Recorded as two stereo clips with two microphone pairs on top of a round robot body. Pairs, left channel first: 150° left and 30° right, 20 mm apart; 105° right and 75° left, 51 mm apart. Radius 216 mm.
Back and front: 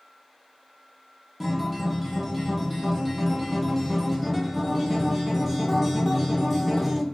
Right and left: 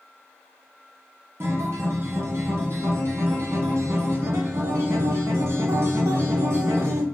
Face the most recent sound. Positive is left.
turn(degrees=55)